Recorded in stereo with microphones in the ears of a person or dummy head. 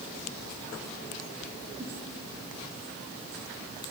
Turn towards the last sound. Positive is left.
turn(degrees=-20)  # may be behind; listen again after turning